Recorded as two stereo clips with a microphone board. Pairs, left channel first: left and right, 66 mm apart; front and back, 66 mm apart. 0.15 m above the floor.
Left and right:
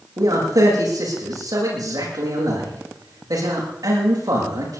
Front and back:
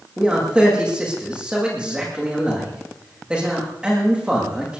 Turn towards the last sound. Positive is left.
turn(degrees=-105)